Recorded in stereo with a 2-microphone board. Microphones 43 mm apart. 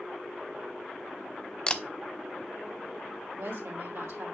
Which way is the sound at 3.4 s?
70° right (ahead or behind).